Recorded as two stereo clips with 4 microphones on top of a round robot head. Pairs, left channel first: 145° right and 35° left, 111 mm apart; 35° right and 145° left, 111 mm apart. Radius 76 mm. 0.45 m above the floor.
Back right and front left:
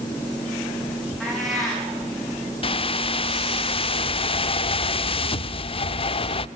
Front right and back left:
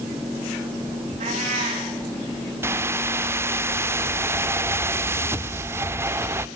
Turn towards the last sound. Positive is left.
turn(degrees=-155)